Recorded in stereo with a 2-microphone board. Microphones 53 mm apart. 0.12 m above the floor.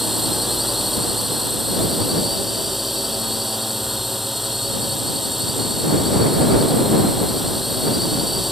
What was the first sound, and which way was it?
A drone, 5° right (ahead or behind).